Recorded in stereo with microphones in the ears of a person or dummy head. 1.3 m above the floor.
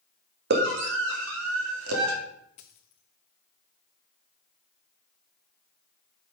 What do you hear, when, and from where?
0.5 s a scream: 60° right (ahead or behind), 1.8 m; by 2.1 s 85° right, 2.5 m
2.6 s a dropped coin: 25° left (ahead or behind), 0.7 m